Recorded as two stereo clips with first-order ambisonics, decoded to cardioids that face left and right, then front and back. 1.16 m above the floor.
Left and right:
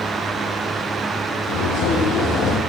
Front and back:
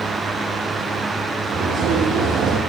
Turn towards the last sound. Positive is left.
turn(degrees=135)